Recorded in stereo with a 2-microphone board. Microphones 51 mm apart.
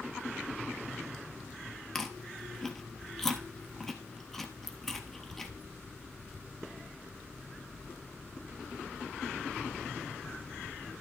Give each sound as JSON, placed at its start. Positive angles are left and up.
{"t": 1.9, "sound": "chewing", "side_deg": 5, "distance_m": 1.2}